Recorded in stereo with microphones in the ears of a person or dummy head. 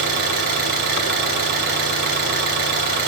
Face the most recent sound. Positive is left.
turn(degrees=-50)  # may be behind; listen again after turning